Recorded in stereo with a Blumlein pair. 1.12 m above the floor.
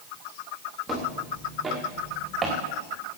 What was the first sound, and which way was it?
Footsteps, 5° left.